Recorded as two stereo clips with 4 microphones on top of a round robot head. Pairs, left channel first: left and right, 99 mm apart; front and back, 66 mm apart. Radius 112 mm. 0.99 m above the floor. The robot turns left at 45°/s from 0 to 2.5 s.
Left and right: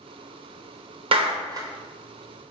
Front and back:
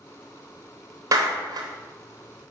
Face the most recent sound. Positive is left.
turn(degrees=170)